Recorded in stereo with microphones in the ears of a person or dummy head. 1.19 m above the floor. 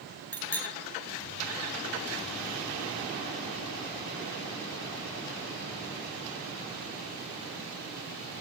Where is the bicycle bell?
10° left (ahead or behind), 6 m.